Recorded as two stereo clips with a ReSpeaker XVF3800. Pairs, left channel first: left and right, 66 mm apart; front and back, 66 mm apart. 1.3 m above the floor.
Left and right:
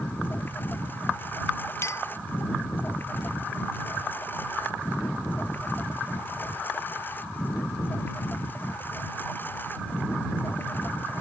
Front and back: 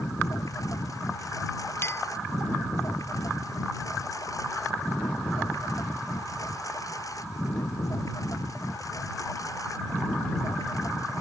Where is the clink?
50° left.